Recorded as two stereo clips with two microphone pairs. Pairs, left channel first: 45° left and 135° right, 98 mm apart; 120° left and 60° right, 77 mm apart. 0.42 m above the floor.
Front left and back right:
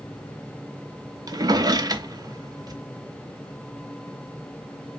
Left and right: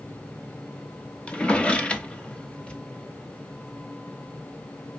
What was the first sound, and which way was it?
A drawer, 165° right.